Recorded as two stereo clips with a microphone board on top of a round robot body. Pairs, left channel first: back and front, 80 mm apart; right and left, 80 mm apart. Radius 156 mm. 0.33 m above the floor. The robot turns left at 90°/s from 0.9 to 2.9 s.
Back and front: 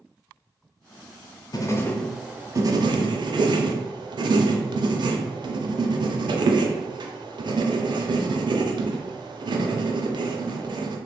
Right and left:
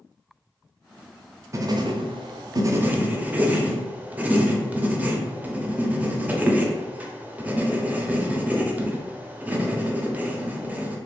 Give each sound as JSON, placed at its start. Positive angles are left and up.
{"t": 1.5, "sound": "writing", "azimuth_deg": 145, "distance_m": 0.5}